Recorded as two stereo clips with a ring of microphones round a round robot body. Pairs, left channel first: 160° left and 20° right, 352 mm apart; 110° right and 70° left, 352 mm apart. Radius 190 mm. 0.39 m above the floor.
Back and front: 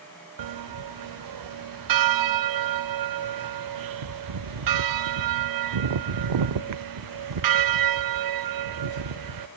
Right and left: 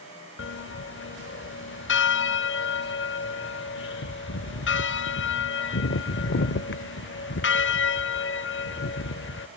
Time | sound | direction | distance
0.4 | a bell | 55° right | 0.6 m